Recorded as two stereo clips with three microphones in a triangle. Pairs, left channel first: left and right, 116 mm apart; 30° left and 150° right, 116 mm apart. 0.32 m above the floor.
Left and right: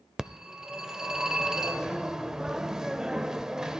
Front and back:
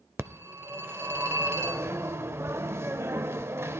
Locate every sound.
0.2 s a phone ringing: 170° right, 0.6 m